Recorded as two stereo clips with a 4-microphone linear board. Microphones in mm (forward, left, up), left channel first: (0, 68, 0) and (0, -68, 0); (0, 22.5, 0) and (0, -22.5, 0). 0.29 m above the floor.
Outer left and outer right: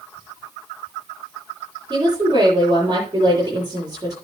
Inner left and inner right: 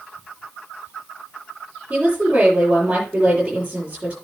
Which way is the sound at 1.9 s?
30° right (ahead or behind).